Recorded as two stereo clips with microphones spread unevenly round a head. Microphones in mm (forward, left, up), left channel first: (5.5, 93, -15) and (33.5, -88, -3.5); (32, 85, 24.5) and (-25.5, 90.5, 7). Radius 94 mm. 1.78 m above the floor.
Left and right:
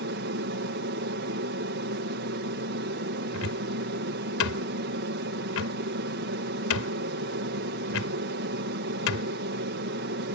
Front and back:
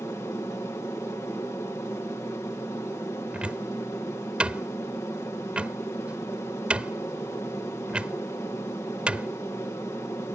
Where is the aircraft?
65° right.